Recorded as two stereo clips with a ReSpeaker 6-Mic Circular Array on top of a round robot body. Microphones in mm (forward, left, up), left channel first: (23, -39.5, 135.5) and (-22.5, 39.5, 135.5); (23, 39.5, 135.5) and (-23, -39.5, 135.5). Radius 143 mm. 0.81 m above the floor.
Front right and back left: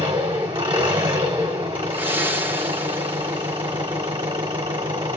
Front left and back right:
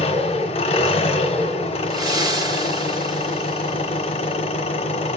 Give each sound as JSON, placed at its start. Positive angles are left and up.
{"t": 0.0, "sound": "an engine running", "azimuth_deg": 80, "distance_m": 0.9}
{"t": 1.9, "sound": "breathing", "azimuth_deg": -170, "distance_m": 1.1}